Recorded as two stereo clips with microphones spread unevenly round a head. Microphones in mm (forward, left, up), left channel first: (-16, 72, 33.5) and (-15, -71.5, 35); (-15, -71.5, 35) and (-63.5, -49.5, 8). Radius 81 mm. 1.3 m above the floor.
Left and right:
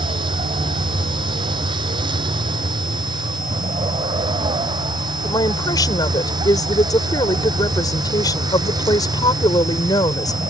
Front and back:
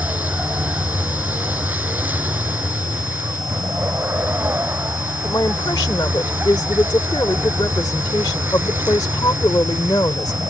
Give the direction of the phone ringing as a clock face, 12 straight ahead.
I don't hear a phone ringing.